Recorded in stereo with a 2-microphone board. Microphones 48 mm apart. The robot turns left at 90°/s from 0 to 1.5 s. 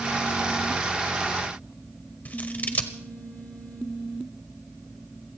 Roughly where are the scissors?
Left.